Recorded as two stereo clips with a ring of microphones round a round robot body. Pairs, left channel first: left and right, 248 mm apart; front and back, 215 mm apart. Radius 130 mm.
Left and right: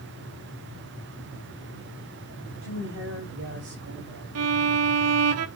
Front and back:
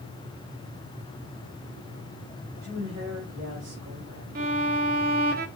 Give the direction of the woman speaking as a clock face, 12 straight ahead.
4 o'clock.